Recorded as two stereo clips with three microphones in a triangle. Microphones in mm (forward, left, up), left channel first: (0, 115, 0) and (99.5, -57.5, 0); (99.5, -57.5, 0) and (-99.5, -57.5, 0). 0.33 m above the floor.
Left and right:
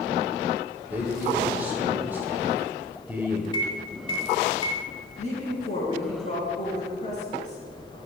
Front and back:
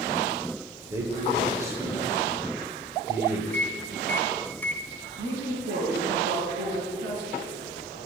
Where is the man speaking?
125° right, 1.2 m.